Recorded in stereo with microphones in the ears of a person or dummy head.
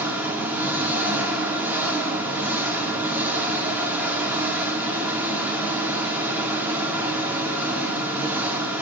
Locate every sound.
0.0 s an engine running: 15° right (ahead or behind), 2 m